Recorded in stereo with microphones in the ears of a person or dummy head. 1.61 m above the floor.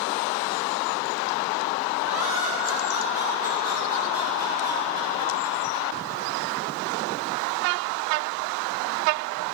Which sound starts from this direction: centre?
Laughter, at 2.0 s.